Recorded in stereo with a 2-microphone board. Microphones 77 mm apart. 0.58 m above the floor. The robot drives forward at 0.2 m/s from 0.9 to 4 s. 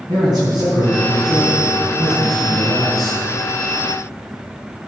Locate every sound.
0.1 s a man speaking: 60° right (ahead or behind), 6 m; by 3.2 s 55° right (ahead or behind), 6 m